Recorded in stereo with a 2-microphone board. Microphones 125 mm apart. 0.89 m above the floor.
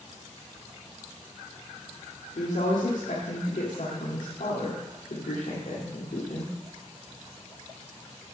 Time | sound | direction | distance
2.4 | a woman speaking | 80° left | 1.9 m